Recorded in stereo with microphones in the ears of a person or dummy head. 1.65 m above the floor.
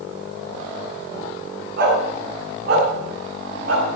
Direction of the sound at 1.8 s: 55° right (ahead or behind).